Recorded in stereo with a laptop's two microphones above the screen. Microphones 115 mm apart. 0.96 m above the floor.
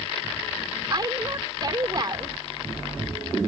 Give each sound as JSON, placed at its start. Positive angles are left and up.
{"t": 0.9, "sound": "a woman speaking", "side_deg": -35}